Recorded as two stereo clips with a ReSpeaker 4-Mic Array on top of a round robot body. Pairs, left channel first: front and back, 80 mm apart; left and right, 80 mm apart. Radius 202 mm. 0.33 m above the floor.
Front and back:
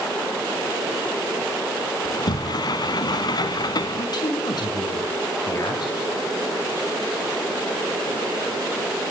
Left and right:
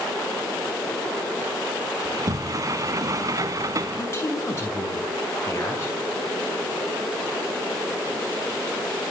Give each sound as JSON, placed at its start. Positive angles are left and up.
{"t": 2.0, "sound": "a sliding door", "azimuth_deg": -40, "distance_m": 1.0}
{"t": 4.0, "sound": "a man speaking", "azimuth_deg": 35, "distance_m": 7.0}